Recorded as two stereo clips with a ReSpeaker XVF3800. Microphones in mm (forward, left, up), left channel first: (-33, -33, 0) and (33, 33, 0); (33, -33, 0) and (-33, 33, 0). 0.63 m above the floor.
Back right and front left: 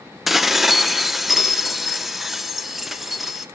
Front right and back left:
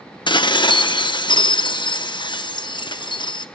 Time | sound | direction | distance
0.3 | dishes clattering | 40° right | 0.6 m